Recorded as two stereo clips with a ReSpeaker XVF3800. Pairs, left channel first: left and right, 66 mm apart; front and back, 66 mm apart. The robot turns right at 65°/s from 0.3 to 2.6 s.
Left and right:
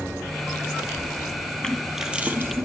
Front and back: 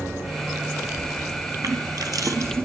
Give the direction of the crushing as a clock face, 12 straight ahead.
6 o'clock.